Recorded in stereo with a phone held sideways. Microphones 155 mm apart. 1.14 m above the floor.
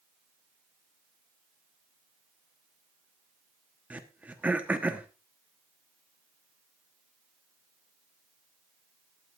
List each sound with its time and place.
3.9 s throat clearing: 10° right (ahead or behind), 1.1 m